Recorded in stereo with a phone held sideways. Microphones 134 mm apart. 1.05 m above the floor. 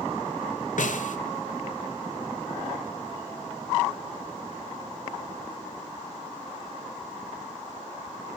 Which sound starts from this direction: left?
A snare drum, at 0.8 s.